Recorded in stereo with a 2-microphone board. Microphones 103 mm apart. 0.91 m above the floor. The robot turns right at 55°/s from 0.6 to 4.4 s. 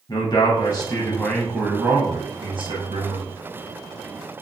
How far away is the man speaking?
About 0.7 m.